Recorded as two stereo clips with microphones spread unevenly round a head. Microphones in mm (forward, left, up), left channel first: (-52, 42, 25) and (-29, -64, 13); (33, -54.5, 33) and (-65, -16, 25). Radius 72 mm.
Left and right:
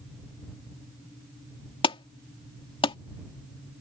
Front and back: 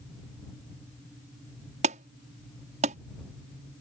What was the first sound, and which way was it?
An alarm, 140° left.